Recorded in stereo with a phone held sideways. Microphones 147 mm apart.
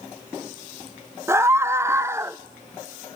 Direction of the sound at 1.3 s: 20° right (ahead or behind).